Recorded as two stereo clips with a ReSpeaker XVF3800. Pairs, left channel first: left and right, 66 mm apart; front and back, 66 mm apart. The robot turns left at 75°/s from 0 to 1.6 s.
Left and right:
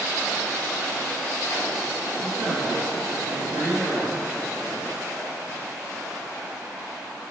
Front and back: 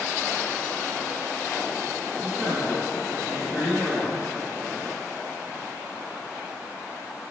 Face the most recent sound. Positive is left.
turn(degrees=-95)